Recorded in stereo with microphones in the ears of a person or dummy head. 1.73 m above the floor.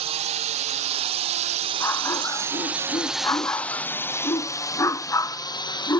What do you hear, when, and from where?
0.0 s a drone: 35° right (ahead or behind); by 6.0 s 20° left (ahead or behind)
1.8 s a dog barking: 20° left (ahead or behind)